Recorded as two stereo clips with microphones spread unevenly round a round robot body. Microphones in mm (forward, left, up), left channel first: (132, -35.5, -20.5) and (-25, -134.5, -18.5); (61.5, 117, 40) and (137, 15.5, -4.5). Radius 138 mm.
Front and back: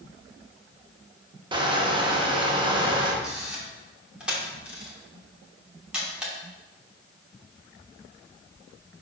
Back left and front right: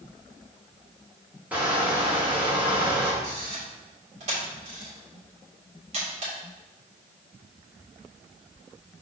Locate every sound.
1.5 s crushing: 100° right, 1.0 m
3.2 s a camera shutter: 65° right, 2.5 m